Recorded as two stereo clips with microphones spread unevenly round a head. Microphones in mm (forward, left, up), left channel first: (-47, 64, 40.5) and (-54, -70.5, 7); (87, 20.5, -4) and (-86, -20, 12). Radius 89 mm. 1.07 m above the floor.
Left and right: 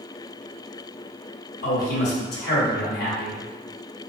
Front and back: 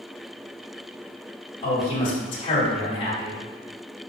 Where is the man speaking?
70° left, 1.8 m.